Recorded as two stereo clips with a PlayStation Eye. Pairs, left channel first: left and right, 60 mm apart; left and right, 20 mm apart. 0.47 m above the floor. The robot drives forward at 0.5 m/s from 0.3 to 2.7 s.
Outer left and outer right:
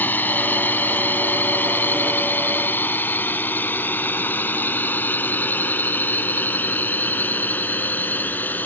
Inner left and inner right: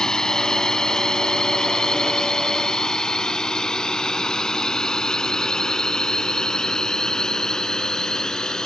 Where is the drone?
30° left (ahead or behind).